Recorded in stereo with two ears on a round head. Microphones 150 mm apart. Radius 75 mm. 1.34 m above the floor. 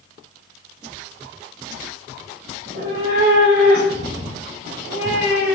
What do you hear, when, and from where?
2.6 s a cat meowing: 45° right (ahead or behind), 0.9 m; by 5.5 s 70° right (ahead or behind), 2.5 m